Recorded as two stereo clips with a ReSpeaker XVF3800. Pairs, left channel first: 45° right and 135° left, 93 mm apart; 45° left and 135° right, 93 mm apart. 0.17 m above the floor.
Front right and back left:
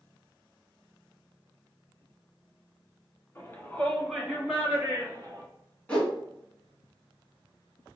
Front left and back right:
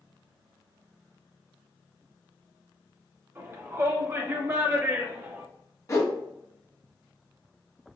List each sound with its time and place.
3.4 s a shout: 90° right, 2.0 m; by 5.5 s 165° left, 2 m
5.9 s a whoosh: 25° left, 1.7 m